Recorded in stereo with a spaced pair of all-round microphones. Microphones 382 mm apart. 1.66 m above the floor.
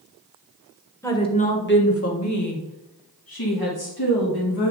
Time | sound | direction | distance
1.0 | a woman speaking | 5° left (ahead or behind) | 1.0 m